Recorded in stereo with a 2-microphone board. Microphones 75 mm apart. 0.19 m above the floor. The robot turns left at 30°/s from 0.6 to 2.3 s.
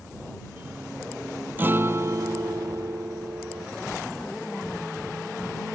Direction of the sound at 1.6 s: 25° right (ahead or behind).